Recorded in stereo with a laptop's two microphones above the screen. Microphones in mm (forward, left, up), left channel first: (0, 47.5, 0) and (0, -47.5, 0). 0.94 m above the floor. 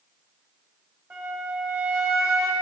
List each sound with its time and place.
1.1 s a flute: 25° right (ahead or behind), 1.4 m